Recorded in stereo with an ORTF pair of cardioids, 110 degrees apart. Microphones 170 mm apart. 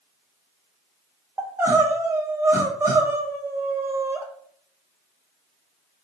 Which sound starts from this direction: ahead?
Crying, at 1.4 s.